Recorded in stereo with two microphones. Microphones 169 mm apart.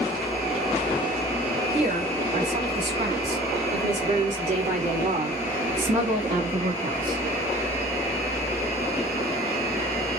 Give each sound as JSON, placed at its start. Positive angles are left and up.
{"t": 1.7, "sound": "a woman speaking", "side_deg": -45, "distance_m": 5.5}